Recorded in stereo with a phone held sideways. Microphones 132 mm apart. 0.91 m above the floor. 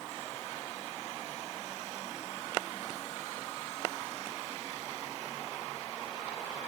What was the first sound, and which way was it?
Only background noise.